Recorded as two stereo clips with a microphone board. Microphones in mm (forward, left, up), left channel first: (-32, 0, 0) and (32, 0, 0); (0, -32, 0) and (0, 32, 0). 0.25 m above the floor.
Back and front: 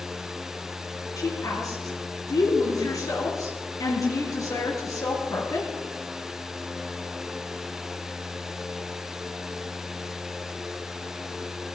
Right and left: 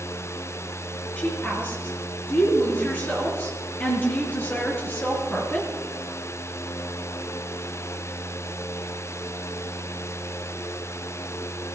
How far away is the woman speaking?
About 5 m.